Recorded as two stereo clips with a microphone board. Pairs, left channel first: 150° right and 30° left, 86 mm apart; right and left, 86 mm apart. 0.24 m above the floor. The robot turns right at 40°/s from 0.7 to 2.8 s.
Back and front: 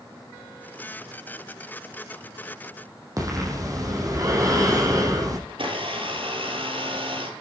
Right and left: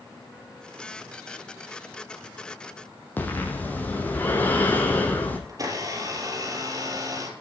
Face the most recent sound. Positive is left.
turn(degrees=40)